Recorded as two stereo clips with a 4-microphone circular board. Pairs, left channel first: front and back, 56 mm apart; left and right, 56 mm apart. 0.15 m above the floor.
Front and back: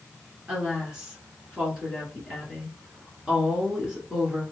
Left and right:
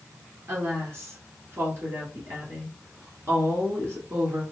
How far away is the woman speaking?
About 1.8 m.